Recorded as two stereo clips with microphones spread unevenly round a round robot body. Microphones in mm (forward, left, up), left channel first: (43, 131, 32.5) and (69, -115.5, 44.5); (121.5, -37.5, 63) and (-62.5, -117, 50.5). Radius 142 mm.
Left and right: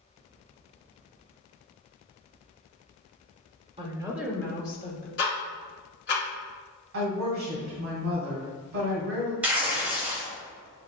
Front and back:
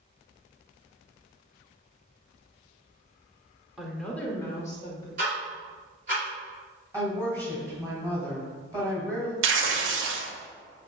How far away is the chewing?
I don't hear chewing.